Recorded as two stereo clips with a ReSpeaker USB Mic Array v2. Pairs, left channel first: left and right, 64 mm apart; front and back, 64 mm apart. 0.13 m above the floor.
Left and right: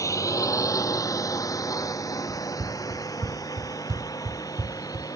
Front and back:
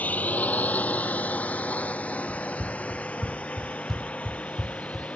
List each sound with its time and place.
0.0 s a drone: 65° left; by 5.2 s 70° left
2.3 s running footsteps: 70° right; by 5.1 s 90° right